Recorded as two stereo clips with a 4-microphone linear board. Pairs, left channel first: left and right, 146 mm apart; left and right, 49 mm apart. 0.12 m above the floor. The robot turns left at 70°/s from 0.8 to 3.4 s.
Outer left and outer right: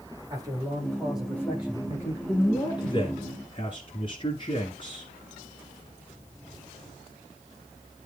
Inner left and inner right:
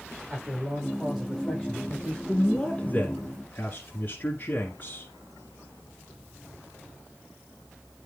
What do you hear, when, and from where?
0.3 s a man speaking: 150° right, 7 m; by 2.2 s 115° left, 7 m
2.3 s a man speaking: 160° left, 1.5 m; by 5.1 s 80° left, 1.5 m